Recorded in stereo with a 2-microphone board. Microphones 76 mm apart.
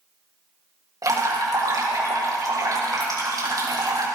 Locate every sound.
1.0 s dripping: 55° right (ahead or behind), 4 m